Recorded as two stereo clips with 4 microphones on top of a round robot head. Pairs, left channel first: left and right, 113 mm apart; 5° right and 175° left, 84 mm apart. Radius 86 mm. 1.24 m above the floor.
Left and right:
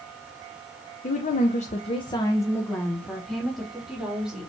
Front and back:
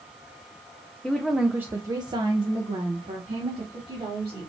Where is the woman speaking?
80° left, 0.7 m; by 4.5 s 175° right, 2 m.